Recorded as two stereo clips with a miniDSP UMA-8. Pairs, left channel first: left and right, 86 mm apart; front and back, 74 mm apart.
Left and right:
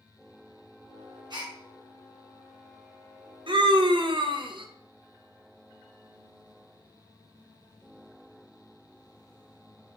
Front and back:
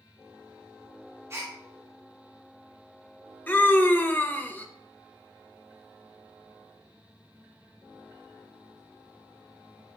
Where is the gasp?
125° right, 1.0 m.